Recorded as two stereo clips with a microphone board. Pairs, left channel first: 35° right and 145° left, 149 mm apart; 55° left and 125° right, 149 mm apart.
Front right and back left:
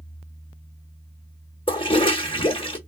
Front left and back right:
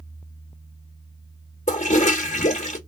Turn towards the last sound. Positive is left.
turn(degrees=20)